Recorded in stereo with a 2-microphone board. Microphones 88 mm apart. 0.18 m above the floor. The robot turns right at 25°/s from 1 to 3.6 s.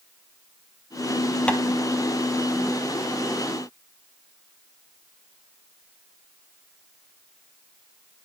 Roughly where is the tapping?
Centre.